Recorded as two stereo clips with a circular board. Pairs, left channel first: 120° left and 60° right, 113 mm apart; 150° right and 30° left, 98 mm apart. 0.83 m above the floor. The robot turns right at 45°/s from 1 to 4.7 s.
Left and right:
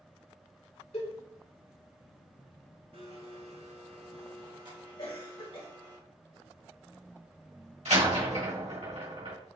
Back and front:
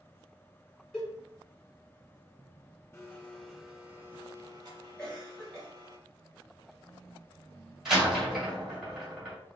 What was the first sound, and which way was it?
A cowbell, 130° left.